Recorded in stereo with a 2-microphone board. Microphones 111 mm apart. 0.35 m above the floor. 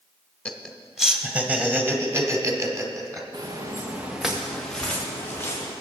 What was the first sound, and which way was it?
Laughter, 10° left (ahead or behind).